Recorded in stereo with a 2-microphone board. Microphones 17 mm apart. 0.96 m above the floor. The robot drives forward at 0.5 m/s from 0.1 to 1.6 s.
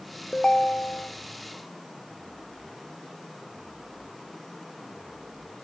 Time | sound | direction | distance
0.3 | a ringtone | 60° left (ahead or behind) | 0.6 m